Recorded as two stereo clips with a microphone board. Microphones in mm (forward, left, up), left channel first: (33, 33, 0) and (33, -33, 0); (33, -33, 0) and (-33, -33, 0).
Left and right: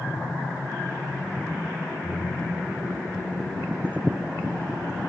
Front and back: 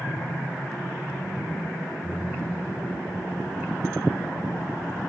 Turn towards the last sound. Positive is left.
turn(degrees=115)